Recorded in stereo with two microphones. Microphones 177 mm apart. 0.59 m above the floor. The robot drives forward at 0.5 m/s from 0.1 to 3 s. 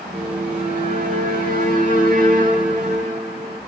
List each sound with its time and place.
0.1 s a violin: 55° right (ahead or behind), 4.5 m; by 3.6 s 45° right (ahead or behind), 5.5 m